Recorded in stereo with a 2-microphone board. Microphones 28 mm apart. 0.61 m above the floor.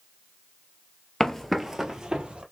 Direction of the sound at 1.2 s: 15° left (ahead or behind).